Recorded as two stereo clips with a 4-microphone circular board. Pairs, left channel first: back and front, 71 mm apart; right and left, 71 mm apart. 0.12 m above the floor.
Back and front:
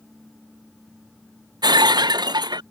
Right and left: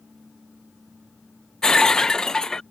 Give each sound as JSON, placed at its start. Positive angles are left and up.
{"t": 1.6, "sound": "breaking glass", "azimuth_deg": -10}